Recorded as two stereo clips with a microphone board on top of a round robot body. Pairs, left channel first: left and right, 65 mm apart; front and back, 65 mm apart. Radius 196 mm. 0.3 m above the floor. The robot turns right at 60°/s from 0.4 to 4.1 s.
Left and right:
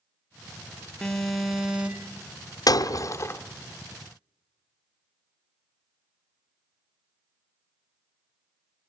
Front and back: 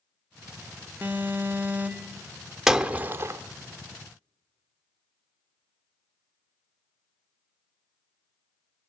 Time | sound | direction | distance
1.0 | an alarm | 155° left | 1.7 m
2.7 | breaking glass | 95° left | 1.0 m